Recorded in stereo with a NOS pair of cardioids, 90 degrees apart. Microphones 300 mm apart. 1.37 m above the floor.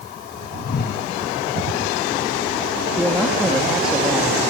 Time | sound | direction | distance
0.6 | a whoosh | 35° left | 2 m
3.0 | a man speaking | straight ahead | 3 m